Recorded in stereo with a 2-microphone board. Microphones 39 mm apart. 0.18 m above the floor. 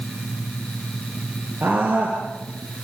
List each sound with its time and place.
1.6 s a scream: 70° right (ahead or behind), 4 m; by 2.8 s 75° right (ahead or behind), 4.5 m